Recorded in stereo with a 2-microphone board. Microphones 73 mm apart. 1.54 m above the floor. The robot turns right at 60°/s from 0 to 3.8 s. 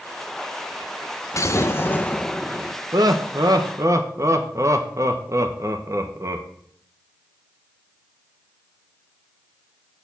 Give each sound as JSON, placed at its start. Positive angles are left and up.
{"t": 1.3, "sound": "an explosion", "azimuth_deg": 105, "distance_m": 0.8}
{"t": 2.9, "sound": "laughter", "azimuth_deg": -105, "distance_m": 1.0}